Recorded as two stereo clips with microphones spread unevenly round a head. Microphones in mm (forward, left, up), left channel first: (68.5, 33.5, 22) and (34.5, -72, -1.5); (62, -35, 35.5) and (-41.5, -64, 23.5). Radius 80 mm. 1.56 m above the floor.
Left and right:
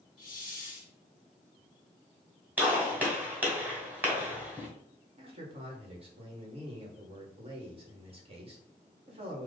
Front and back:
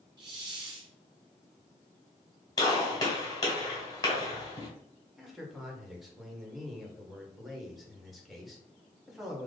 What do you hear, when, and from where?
0.2 s a hiss: 140° left, 0.9 m
2.6 s a gunshot: 25° right, 2.0 m
5.2 s a man speaking: 75° right, 1.9 m